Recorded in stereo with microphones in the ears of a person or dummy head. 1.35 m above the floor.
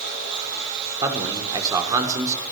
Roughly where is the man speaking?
Right.